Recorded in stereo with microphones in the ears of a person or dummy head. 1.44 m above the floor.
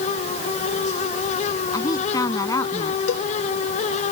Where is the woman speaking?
25° left (ahead or behind).